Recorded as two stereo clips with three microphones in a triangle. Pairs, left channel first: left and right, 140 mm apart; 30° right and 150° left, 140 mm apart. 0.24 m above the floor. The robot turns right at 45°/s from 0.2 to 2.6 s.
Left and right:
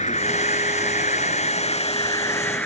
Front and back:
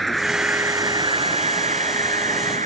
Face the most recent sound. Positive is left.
turn(degrees=170)